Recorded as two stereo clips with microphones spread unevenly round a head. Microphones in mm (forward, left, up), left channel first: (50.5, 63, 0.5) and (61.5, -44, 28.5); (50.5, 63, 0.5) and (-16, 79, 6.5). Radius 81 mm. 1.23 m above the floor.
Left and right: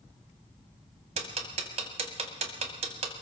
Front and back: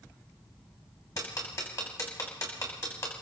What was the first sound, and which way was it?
Ticking, 80° right.